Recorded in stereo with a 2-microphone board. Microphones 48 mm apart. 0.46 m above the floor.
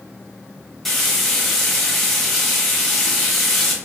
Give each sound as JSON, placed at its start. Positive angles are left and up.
{"t": 0.8, "sound": "frying", "side_deg": 5, "distance_m": 1.0}